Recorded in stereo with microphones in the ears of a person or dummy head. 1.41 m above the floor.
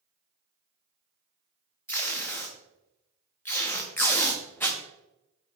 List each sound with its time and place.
1.9 s tape being pulled: 10° left (ahead or behind), 0.5 m